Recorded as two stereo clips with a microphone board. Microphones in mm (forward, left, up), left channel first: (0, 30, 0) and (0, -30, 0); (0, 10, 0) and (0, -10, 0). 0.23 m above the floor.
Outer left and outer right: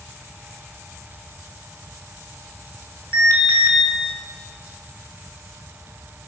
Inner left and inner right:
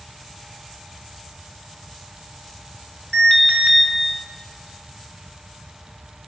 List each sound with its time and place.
3.1 s an alarm: 40° left (ahead or behind), 4 m